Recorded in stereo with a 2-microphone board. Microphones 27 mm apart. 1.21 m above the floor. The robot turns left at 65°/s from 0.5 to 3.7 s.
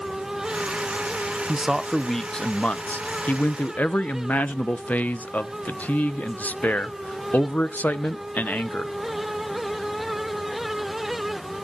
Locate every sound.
1.5 s a man speaking: 155° right, 0.6 m; by 8.9 s 60° left, 0.6 m